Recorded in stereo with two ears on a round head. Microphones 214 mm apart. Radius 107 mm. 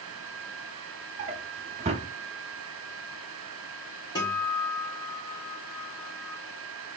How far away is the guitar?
About 2.5 m.